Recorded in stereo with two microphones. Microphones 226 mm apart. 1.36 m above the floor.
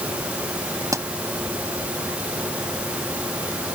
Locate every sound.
0.9 s a pop: 15° right (ahead or behind)